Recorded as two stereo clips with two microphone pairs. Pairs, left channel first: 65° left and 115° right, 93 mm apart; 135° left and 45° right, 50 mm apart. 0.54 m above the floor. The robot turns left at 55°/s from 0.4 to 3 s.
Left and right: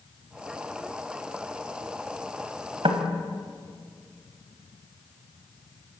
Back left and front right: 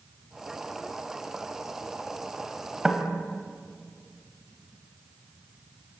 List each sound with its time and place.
2.8 s knocking: 120° right, 2.5 m; by 3.0 s 130° right, 2.5 m